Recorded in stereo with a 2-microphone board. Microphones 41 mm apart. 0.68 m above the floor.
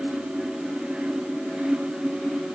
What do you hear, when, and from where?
Only background noise.